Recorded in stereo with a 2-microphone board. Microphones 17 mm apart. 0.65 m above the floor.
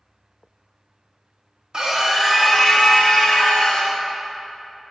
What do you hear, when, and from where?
1.7 s a scream: 40° right (ahead or behind), 1.1 m; by 3.9 s 50° left (ahead or behind), 2 m